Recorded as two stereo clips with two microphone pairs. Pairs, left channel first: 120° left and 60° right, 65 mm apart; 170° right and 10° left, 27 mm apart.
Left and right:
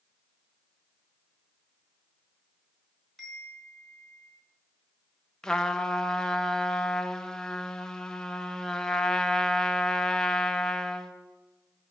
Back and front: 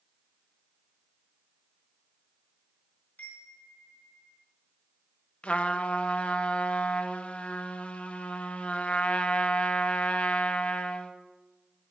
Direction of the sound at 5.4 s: 165° right.